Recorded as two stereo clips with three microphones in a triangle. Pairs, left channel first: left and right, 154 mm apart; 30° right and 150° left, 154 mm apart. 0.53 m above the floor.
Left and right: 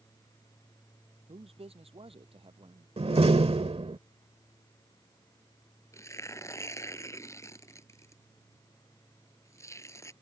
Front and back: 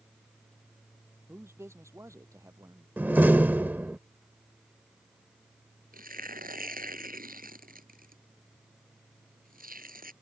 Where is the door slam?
130° right.